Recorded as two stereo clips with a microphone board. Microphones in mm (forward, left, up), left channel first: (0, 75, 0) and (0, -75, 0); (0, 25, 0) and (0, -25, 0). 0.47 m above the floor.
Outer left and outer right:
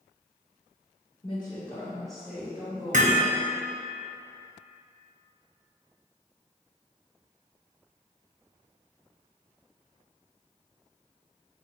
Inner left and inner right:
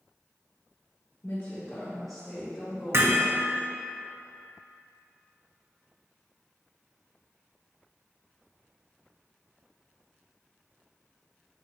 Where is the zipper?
No zipper in this recording.